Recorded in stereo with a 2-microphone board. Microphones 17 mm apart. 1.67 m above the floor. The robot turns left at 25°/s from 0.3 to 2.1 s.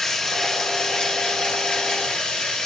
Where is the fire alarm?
No fire alarm in this recording.